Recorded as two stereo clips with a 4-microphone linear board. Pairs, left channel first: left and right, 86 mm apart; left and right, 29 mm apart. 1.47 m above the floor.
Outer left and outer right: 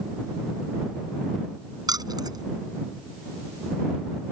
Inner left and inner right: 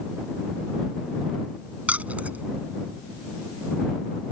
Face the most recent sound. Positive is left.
turn(degrees=-50)  # may be behind; listen again after turning